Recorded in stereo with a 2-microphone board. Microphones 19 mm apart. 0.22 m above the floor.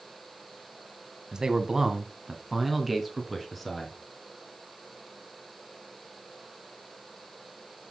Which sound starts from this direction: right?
A man speaking, at 1.3 s.